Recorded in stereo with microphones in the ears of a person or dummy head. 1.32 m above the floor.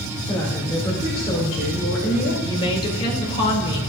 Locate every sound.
0.3 s a woman speaking: 10° left (ahead or behind), 2.5 m; by 2.3 s 50° left (ahead or behind), 2.5 m
2.4 s a woman speaking: 30° left (ahead or behind), 2.5 m